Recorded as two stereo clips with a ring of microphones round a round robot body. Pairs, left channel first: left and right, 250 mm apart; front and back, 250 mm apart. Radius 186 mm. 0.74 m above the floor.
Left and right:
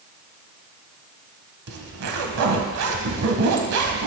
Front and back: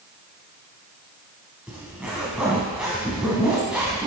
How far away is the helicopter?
No helicopter in this recording.